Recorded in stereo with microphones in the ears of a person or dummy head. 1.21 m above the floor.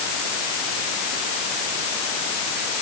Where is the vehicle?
I don't hear a vehicle.